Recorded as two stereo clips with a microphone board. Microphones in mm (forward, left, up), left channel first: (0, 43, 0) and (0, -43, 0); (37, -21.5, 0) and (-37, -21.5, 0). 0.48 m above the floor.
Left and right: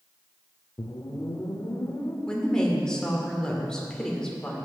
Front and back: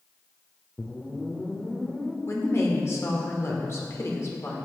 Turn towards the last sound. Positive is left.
turn(degrees=15)